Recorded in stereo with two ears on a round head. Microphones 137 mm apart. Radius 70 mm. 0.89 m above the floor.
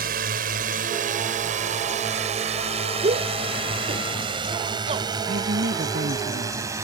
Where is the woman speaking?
65° right (ahead or behind).